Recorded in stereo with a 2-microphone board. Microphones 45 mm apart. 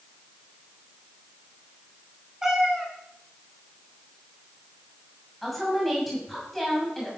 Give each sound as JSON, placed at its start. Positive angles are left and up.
{"t": 2.4, "sound": "a cat meowing", "side_deg": -10, "distance_m": 3.5}
{"t": 5.4, "sound": "a woman speaking", "side_deg": 0, "distance_m": 6.0}